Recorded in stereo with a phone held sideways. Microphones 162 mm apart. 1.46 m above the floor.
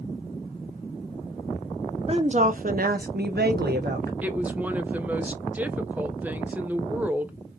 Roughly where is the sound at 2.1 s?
Right.